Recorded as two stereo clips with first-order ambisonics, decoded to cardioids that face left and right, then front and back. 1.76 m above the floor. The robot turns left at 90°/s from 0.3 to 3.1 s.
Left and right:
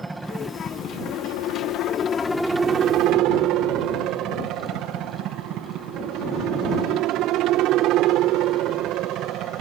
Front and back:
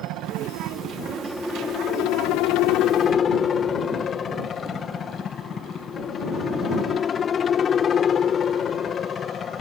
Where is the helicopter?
170° right; by 9.6 s 60° right.